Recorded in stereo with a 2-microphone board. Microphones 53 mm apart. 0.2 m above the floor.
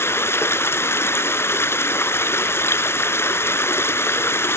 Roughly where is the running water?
Left.